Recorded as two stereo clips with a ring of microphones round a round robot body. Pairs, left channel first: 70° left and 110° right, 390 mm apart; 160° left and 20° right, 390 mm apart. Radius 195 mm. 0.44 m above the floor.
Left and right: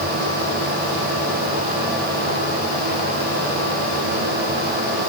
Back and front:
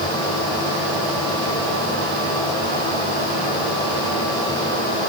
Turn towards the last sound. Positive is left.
No sound to turn to.